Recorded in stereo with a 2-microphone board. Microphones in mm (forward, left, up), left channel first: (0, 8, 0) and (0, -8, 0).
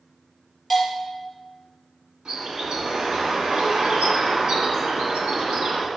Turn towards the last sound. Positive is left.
turn(degrees=-65)  # may be behind; listen again after turning